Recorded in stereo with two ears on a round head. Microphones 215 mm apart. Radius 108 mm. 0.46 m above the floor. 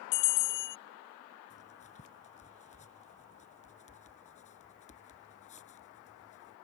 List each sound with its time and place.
0.1 s a bell: 75° left (ahead or behind)
1.5 s writing: 30° left (ahead or behind)